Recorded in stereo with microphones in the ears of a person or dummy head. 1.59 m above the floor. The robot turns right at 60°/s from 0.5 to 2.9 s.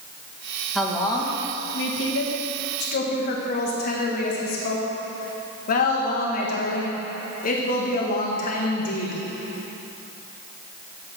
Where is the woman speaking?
5° right, 1.6 m; by 9.2 s 125° left, 1.6 m.